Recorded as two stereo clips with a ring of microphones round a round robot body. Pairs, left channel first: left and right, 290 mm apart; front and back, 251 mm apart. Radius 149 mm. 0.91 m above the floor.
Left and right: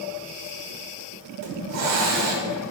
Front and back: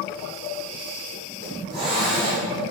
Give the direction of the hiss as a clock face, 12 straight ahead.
4 o'clock.